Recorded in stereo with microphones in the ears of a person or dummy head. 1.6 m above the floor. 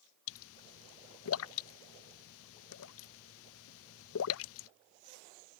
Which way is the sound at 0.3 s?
75° left (ahead or behind).